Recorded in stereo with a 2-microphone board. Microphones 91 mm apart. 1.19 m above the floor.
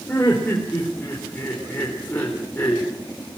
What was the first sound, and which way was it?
Laughter, 20° left (ahead or behind).